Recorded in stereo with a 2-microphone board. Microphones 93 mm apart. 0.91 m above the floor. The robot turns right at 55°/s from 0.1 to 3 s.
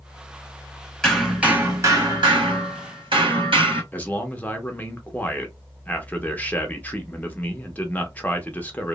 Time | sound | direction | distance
1.0 | hammering | 170° left | 1.4 m
3.9 | a man speaking | 20° left (ahead or behind) | 0.6 m